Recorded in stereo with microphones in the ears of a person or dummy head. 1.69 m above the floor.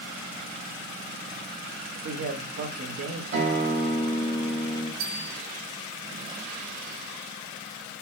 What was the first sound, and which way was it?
A man speaking, 45° right (ahead or behind).